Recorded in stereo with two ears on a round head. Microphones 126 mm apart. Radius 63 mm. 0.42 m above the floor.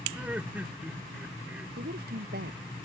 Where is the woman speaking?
80° right.